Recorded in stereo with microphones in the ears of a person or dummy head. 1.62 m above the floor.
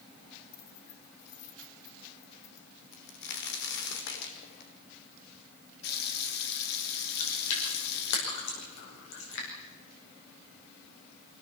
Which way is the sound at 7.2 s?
70° left (ahead or behind).